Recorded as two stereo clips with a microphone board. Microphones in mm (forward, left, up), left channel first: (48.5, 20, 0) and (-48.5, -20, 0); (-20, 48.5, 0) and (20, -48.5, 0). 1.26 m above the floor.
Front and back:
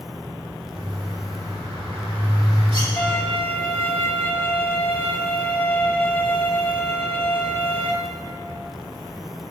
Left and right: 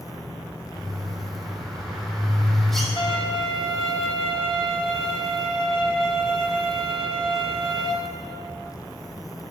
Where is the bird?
160° right, 4 m.